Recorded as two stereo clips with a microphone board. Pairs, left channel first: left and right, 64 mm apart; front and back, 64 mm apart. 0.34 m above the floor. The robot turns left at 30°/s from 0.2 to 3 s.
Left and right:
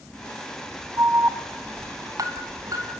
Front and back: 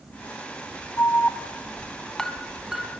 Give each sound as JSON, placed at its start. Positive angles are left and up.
{"t": 1.0, "sound": "an alarm", "azimuth_deg": -45, "distance_m": 2.5}